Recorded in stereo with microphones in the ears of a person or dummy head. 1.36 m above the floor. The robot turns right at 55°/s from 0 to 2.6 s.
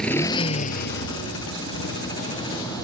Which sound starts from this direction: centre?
A motorcycle, at 0.0 s.